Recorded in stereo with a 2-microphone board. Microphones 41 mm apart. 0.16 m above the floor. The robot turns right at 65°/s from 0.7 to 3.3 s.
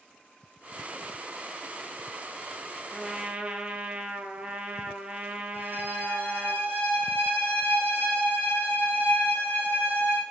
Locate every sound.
2.9 s a trumpet: 5° right (ahead or behind), 1.1 m; by 6.5 s 30° right (ahead or behind), 1.1 m
5.5 s a violin: 55° right (ahead or behind), 4 m